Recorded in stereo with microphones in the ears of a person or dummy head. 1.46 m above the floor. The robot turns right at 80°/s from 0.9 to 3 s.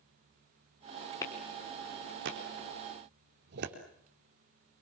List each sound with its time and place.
1.2 s a clap: 20° left (ahead or behind), 3.5 m; by 3.8 s 60° right (ahead or behind), 3.5 m